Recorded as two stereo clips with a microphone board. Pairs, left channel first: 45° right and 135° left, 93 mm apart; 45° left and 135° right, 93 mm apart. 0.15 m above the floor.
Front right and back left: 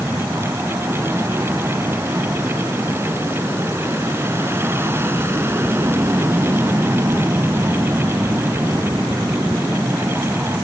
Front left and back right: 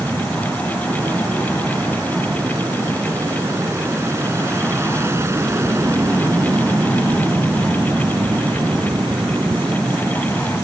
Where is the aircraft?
175° right.